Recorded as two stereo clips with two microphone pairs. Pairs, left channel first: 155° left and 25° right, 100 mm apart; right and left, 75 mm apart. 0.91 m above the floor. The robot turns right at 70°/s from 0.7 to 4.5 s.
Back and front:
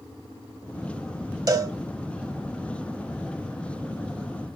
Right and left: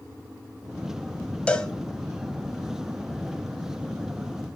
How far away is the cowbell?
About 0.9 m.